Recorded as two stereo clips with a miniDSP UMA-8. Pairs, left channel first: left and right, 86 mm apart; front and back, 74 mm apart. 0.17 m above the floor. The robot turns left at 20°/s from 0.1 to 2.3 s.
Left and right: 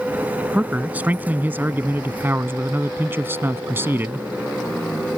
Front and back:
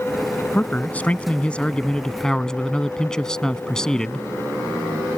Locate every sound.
0.5 s a man speaking: 35° right; by 4.3 s 70° right